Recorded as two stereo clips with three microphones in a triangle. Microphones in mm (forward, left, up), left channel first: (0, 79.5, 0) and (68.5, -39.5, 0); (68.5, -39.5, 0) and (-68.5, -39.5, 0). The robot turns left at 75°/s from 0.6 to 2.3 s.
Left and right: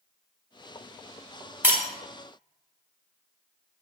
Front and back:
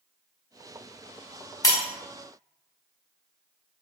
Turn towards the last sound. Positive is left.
turn(degrees=-55)